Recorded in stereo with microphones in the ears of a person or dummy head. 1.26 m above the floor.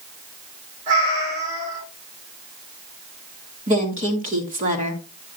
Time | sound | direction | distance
0.9 | a cat meowing | 40° right (ahead or behind) | 4 m
3.7 | a woman speaking | 45° right (ahead or behind) | 2 m